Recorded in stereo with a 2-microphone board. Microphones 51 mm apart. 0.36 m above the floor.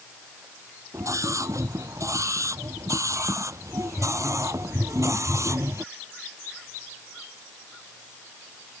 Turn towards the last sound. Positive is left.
turn(degrees=-70)  # may be behind; listen again after turning